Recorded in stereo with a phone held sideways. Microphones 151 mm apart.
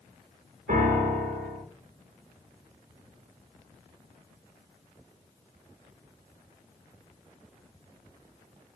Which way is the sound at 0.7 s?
60° right (ahead or behind).